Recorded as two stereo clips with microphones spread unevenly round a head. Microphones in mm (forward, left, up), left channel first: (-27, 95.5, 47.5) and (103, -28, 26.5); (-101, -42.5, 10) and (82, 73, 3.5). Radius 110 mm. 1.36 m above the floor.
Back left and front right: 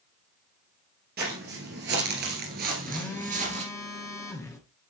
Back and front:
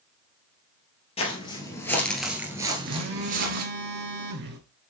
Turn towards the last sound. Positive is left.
turn(degrees=65)